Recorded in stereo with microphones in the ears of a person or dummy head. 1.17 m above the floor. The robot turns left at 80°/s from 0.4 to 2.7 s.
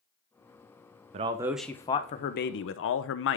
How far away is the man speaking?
About 0.6 m.